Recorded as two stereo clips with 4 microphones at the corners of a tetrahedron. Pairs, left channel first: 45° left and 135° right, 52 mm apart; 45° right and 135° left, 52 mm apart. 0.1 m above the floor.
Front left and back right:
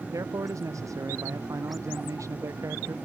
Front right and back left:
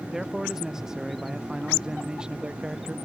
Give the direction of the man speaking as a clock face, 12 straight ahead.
5 o'clock.